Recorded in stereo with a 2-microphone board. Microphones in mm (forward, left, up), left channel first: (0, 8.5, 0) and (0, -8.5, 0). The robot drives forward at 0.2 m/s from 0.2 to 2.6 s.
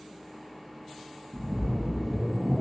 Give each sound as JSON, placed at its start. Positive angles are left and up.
{"t": 1.3, "sound": "a splash", "side_deg": -25, "distance_m": 0.5}